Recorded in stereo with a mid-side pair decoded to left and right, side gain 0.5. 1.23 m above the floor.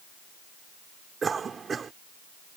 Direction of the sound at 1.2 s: 35° right.